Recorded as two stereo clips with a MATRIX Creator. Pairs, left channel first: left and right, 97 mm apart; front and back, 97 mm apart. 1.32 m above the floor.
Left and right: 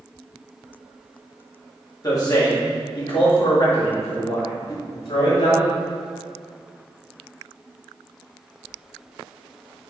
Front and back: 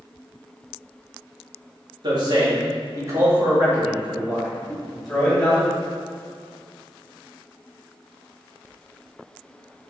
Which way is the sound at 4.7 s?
80° left.